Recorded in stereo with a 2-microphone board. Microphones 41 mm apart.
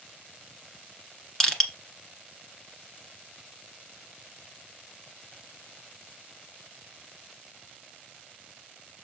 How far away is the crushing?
About 1.5 m.